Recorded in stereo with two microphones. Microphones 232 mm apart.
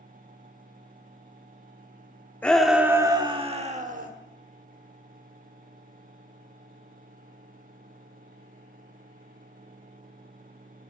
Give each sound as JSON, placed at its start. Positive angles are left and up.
{"t": 2.4, "sound": "a shout", "side_deg": 5, "distance_m": 0.8}